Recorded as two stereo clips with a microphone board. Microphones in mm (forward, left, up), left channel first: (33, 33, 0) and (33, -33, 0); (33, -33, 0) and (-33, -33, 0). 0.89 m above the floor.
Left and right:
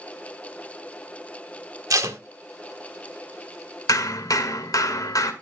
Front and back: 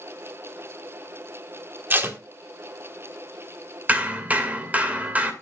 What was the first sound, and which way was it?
Tape being pulled, 120° right.